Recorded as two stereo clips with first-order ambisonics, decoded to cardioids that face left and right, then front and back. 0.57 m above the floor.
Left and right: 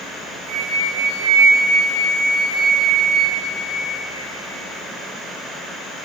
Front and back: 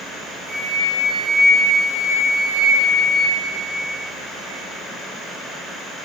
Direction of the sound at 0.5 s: 110° right.